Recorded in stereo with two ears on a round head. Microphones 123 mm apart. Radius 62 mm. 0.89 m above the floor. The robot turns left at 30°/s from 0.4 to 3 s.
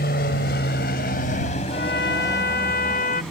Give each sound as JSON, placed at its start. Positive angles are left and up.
{"t": 0.0, "sound": "an aircraft", "side_deg": 75}
{"t": 1.7, "sound": "a trumpet", "azimuth_deg": 100}